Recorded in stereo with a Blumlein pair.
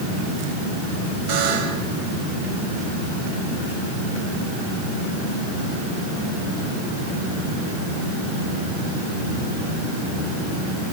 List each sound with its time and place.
1.3 s a buzzer: 40° right, 5 m